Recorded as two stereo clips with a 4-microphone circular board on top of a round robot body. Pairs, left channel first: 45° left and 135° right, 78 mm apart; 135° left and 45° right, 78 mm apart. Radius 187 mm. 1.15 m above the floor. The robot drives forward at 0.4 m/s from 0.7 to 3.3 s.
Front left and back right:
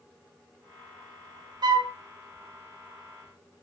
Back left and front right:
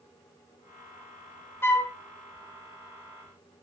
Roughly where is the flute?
Behind.